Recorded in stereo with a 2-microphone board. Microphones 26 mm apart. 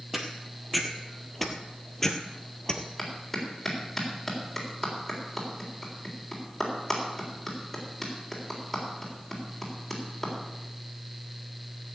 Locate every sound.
0.1 s footsteps: 10° right (ahead or behind), 2.0 m; by 2.9 s 25° left (ahead or behind), 1.5 m
3.0 s a clap: 10° left (ahead or behind), 3.5 m